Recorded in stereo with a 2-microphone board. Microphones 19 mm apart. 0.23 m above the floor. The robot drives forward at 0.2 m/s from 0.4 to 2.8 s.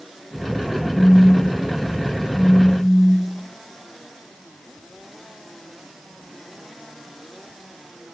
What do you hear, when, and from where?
0.9 s a phone buzzing: 25° left (ahead or behind), 0.7 m; by 3.5 s 15° left (ahead or behind), 1.0 m